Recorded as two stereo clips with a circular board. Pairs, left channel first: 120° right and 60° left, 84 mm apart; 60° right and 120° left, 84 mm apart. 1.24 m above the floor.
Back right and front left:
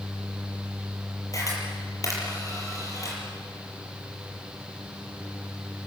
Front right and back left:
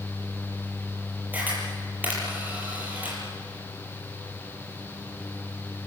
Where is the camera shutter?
170° right, 7 m.